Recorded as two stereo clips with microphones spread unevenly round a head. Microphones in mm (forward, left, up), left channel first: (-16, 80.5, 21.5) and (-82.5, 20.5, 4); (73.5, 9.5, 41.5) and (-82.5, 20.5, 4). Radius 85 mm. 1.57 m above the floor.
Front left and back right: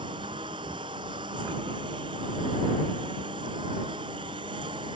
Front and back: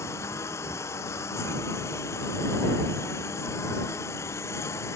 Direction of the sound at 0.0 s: 80° right.